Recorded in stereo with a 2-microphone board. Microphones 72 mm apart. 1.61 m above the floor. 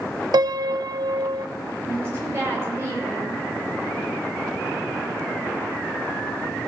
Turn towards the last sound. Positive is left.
turn(degrees=-35)  # may be behind; listen again after turning